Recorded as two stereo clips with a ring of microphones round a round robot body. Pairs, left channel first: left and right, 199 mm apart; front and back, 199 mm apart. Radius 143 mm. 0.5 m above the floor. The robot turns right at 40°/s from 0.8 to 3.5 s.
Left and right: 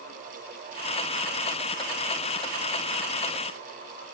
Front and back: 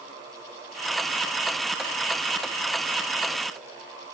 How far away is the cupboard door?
No cupboard door in this recording.